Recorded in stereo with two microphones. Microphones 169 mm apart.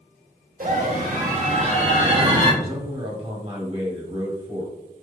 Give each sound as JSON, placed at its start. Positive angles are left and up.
{"t": 0.6, "sound": "a scream", "side_deg": -55, "distance_m": 1.5}
{"t": 2.6, "sound": "a man speaking", "side_deg": -35, "distance_m": 1.6}